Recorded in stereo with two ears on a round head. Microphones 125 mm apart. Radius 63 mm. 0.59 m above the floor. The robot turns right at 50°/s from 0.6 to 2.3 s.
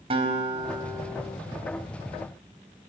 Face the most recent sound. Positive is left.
turn(degrees=45)